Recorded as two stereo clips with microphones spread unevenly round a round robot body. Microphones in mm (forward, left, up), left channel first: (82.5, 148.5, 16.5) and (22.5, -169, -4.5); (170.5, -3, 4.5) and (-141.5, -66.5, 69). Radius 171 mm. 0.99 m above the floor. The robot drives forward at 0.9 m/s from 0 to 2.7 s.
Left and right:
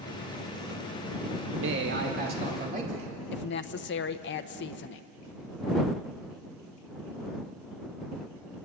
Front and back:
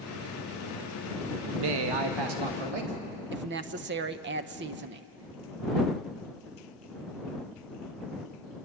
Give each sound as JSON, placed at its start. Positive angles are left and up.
{"t": 1.4, "sound": "a man speaking", "azimuth_deg": -155, "distance_m": 1.0}
{"t": 3.3, "sound": "a woman speaking", "azimuth_deg": 130, "distance_m": 0.8}